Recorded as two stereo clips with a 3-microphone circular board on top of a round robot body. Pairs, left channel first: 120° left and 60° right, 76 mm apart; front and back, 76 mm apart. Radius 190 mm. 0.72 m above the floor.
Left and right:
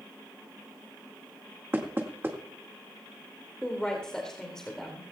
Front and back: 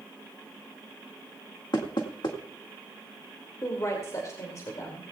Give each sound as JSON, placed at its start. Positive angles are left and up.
{"t": 1.7, "sound": "knocking", "azimuth_deg": 0, "distance_m": 1.8}
{"t": 3.6, "sound": "a woman speaking", "azimuth_deg": 40, "distance_m": 2.5}